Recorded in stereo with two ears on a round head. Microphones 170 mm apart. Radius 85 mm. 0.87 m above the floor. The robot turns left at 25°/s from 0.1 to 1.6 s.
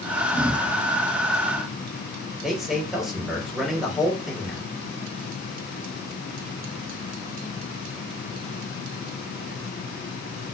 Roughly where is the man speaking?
Centre.